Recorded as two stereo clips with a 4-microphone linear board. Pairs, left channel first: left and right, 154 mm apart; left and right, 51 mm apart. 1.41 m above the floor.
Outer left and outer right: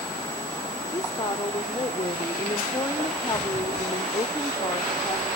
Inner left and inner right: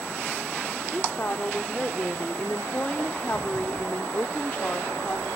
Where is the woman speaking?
25° left (ahead or behind), 1.1 m.